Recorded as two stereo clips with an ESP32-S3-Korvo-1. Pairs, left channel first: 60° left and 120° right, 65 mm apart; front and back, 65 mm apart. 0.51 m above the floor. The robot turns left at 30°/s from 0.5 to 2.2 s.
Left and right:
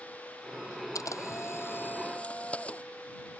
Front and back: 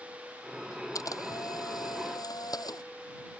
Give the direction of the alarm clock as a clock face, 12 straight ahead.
No alarm clock in this recording.